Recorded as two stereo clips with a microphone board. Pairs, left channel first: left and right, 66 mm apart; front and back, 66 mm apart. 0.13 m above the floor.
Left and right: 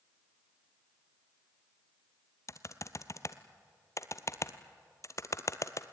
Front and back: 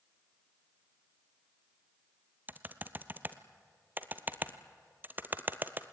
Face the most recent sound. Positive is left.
turn(degrees=125)